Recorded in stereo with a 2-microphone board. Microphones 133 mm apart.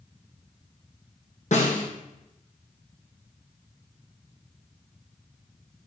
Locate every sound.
1.5 s a snare drum: 60° left (ahead or behind), 3.5 m